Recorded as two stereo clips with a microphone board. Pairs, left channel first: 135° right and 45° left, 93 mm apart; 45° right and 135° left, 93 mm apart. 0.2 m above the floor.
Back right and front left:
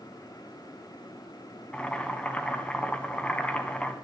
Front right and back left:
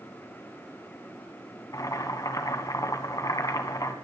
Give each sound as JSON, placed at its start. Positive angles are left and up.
{"t": 1.7, "sound": "boiling", "azimuth_deg": -65, "distance_m": 1.4}